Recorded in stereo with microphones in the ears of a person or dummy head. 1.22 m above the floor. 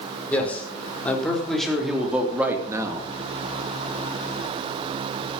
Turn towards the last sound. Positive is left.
turn(degrees=-25)  # may be behind; listen again after turning